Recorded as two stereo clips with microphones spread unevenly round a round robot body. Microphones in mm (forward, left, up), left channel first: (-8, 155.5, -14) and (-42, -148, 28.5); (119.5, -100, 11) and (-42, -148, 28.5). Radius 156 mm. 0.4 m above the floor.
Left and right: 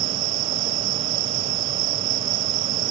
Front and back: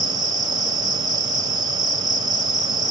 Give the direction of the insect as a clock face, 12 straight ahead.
3 o'clock.